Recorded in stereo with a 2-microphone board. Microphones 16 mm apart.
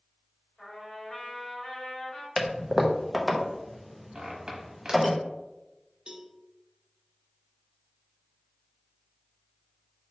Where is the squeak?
60° right (ahead or behind), 1.1 m.